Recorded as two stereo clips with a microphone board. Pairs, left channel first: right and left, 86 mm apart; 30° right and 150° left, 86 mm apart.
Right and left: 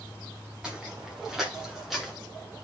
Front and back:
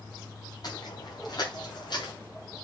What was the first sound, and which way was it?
Footsteps, 10° left.